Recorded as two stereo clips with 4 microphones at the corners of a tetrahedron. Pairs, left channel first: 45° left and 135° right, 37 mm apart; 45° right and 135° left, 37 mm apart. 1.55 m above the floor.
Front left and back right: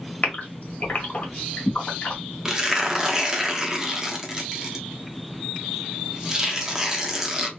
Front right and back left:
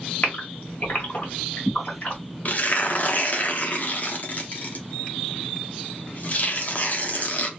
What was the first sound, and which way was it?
A gasp, 5° left.